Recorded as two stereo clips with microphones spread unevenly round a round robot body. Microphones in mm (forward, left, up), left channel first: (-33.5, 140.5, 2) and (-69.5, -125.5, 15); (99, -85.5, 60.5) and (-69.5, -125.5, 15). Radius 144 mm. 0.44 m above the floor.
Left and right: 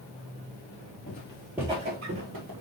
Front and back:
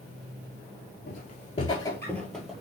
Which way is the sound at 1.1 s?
25° left.